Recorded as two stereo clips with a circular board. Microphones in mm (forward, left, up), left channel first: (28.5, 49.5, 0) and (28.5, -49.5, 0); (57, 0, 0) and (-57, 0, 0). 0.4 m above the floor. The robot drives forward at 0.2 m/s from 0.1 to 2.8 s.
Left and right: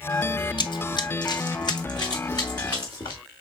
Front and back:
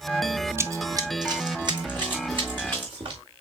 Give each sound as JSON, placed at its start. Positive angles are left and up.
{"t": 0.6, "sound": "running footsteps", "azimuth_deg": 115, "distance_m": 0.7}